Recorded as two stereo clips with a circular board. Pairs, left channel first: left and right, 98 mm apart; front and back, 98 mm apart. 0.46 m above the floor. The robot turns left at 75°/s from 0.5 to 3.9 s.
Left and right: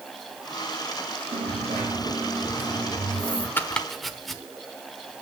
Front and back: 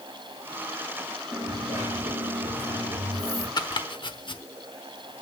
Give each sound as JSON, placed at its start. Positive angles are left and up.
{"t": 1.3, "sound": "a dropped coin", "azimuth_deg": -85, "distance_m": 7.5}
{"t": 3.6, "sound": "chopping", "azimuth_deg": 30, "distance_m": 1.1}